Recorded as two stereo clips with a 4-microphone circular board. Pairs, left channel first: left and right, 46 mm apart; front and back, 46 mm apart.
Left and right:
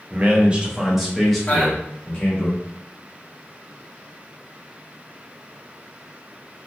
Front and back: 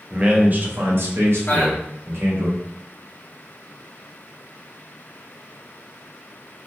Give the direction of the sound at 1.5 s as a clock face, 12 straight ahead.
11 o'clock.